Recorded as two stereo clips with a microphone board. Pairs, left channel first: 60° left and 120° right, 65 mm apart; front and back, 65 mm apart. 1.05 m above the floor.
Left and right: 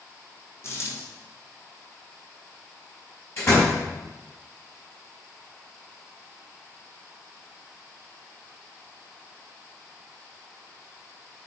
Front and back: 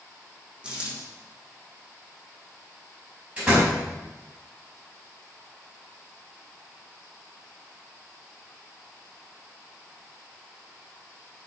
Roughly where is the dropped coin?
Left.